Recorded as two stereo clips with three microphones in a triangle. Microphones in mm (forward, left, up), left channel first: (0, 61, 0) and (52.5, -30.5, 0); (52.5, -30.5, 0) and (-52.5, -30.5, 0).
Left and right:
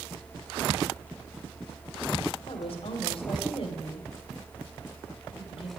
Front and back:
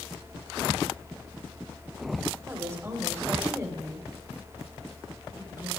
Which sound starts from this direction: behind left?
A woman speaking, at 2.5 s.